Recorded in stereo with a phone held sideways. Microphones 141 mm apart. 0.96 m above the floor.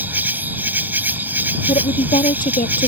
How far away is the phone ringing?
I don't hear a phone ringing.